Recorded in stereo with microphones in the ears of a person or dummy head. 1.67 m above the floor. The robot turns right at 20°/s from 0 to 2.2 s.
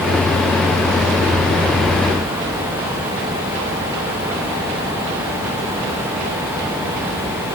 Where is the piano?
I don't hear a piano.